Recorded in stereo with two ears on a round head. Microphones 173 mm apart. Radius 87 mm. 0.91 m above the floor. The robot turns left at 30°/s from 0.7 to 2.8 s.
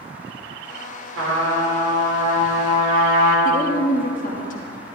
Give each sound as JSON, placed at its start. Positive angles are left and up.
{"t": 1.2, "sound": "a trumpet", "azimuth_deg": -85, "distance_m": 3.0}
{"t": 3.5, "sound": "a woman speaking", "side_deg": 45, "distance_m": 1.2}